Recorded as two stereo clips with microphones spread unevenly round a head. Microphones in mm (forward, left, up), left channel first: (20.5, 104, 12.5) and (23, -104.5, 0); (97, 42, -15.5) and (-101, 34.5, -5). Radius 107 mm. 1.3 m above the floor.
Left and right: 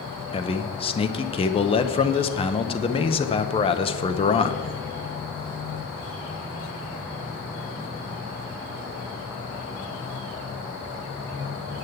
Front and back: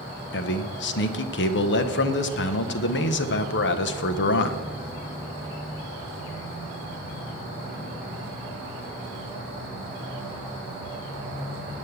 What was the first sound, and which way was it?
A man speaking, 25° left.